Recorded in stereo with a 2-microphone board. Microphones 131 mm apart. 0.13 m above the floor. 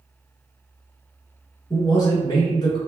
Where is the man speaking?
30° left (ahead or behind), 1.4 m.